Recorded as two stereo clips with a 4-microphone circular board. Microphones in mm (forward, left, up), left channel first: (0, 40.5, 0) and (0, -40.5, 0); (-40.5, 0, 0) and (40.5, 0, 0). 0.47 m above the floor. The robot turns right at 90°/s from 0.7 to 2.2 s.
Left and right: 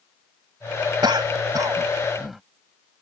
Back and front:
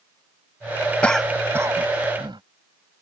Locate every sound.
1.0 s a cough: 105° right; by 2.4 s straight ahead